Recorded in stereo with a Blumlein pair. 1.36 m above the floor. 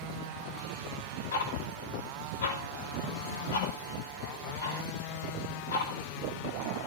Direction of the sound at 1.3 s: 65° left.